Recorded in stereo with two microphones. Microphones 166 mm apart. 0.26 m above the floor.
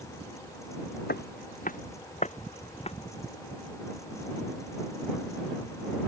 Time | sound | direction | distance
1.1 | footsteps | 75° left (ahead or behind) | ?